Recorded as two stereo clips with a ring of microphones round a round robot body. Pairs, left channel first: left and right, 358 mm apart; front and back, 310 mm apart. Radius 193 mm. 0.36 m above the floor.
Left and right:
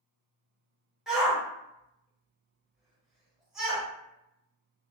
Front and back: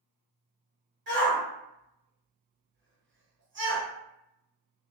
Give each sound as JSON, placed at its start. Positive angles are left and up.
{"t": 1.1, "sound": "a shout", "azimuth_deg": 180, "distance_m": 1.2}